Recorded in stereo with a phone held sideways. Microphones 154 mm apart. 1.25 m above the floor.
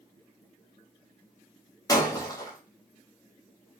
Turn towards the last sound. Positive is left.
turn(degrees=25)  # may be behind; listen again after turning